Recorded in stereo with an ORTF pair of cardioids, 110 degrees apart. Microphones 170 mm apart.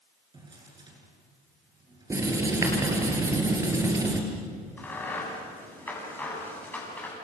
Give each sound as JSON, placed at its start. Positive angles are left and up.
{"t": 0.3, "sound": "a drawer", "azimuth_deg": -25, "distance_m": 9.0}
{"t": 2.1, "sound": "writing", "azimuth_deg": -20, "distance_m": 5.5}
{"t": 4.8, "sound": "a crack", "azimuth_deg": 10, "distance_m": 8.5}